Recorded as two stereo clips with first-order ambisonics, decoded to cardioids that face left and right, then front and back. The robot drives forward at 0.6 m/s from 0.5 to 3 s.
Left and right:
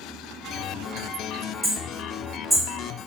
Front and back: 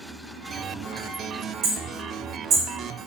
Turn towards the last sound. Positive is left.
turn(degrees=-175)